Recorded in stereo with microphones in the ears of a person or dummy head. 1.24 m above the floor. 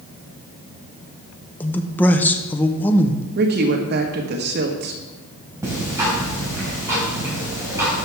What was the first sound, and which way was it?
A man speaking, 10° left (ahead or behind).